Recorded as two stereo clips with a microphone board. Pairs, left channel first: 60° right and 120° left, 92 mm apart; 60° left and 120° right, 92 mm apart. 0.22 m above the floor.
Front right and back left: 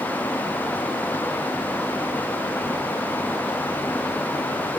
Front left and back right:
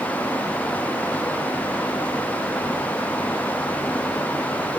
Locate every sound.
Only background noise.